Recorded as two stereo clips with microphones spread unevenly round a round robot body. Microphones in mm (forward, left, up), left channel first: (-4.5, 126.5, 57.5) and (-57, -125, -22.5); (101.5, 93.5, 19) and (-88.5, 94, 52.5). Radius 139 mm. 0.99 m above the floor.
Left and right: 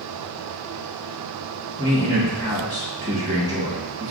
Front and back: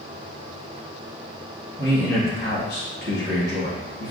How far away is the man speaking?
About 1.2 m.